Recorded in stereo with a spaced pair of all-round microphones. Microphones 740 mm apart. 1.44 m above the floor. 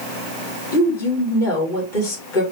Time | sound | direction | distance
0.7 | a woman speaking | 80° left | 1.9 m